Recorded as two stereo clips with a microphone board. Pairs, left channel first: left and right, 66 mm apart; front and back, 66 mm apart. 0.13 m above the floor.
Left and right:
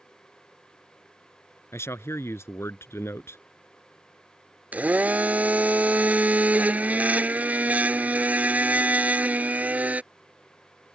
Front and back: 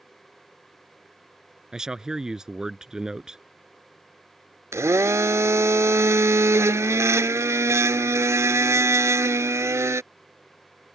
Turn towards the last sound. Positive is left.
turn(degrees=-150)